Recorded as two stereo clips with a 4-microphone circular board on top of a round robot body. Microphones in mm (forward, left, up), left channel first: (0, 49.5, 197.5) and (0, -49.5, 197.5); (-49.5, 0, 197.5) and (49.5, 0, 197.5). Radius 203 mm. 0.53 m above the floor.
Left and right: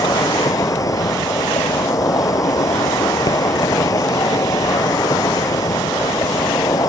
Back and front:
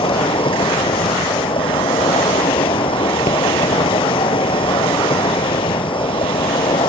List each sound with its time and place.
0.0 s an insect: 145° left